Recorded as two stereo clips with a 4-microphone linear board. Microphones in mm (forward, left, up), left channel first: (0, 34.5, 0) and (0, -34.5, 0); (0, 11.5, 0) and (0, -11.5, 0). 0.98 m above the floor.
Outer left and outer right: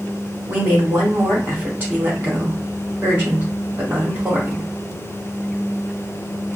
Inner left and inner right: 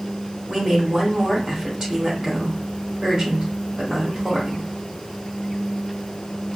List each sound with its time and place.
0.5 s a woman speaking: 25° right (ahead or behind), 2 m